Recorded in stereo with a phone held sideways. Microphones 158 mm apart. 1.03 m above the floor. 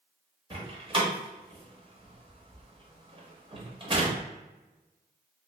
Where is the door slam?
35° right (ahead or behind), 0.8 m.